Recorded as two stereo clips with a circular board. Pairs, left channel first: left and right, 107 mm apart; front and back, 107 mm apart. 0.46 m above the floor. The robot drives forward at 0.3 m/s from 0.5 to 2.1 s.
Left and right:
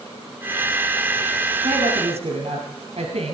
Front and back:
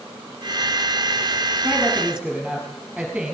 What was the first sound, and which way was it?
A woman speaking, 100° right.